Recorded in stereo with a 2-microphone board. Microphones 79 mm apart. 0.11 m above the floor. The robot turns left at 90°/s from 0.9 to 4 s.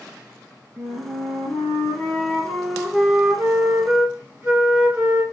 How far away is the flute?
About 1.4 m.